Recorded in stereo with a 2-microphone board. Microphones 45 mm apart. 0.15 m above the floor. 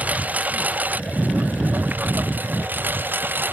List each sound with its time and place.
0.0 s a lawn mower: 35° right (ahead or behind); by 3.5 s 45° right (ahead or behind)